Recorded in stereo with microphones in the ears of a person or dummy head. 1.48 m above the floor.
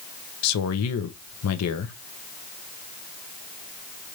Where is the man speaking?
80° left, 0.6 m.